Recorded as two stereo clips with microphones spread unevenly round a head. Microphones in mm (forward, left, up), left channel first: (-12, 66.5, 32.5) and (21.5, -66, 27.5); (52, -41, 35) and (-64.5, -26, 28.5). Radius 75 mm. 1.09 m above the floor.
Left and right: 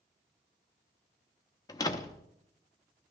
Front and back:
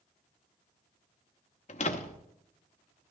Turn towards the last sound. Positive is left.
turn(degrees=40)